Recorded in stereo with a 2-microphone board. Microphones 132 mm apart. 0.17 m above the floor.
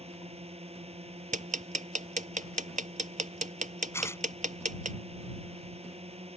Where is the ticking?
75° right (ahead or behind).